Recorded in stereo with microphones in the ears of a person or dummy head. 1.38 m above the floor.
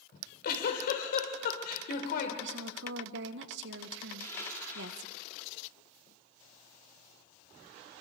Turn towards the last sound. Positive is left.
turn(degrees=20)  # may be behind; listen again after turning